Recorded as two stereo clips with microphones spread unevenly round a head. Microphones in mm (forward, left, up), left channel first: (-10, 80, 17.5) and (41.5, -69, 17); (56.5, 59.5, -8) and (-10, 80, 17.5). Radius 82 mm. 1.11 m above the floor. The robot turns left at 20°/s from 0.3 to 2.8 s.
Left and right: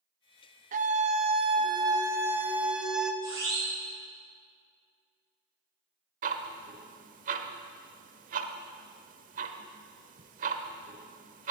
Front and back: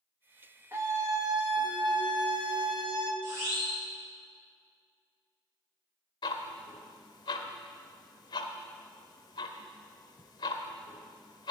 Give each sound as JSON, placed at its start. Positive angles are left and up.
{"t": 0.7, "sound": "a scream", "azimuth_deg": -115, "distance_m": 1.3}
{"t": 3.2, "sound": "a siren", "azimuth_deg": -145, "distance_m": 7.0}
{"t": 6.2, "sound": "ticking", "azimuth_deg": -55, "distance_m": 1.1}